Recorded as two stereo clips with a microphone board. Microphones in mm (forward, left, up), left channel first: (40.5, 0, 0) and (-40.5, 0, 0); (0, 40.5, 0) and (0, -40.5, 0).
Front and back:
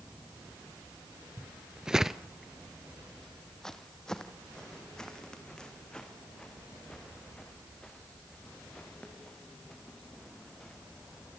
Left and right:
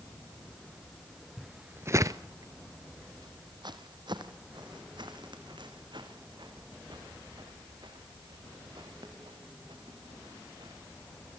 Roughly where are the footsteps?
Behind.